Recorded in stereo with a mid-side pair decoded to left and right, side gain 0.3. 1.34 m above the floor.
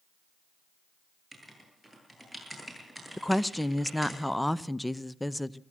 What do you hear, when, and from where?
1.3 s writing: 15° right, 9.5 m
3.2 s a woman speaking: 5° left, 0.8 m